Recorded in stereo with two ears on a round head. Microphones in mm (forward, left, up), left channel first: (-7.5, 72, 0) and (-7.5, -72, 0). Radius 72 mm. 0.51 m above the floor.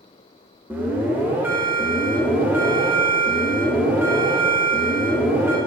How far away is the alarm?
About 0.8 m.